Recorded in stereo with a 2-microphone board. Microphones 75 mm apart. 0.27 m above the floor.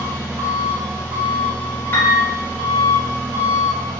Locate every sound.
0.0 s an engine running: 35° right (ahead or behind), 1.4 m
1.9 s a piano: 30° left (ahead or behind), 0.8 m